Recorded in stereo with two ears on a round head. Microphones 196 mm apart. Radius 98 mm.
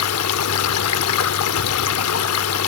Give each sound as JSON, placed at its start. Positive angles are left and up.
{"t": 0.0, "sound": "running water", "side_deg": 75, "distance_m": 0.8}